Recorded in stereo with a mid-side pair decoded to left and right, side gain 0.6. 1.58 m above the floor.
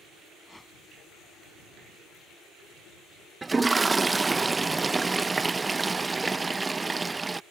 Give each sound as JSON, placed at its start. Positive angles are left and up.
{"t": 0.4, "sound": "a whoosh", "azimuth_deg": 5}
{"t": 3.4, "sound": "a toilet flushing", "azimuth_deg": -20}